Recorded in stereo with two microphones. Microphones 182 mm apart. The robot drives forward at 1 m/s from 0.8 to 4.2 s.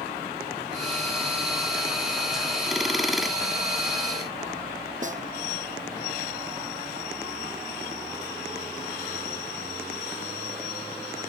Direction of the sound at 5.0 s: 45° right (ahead or behind).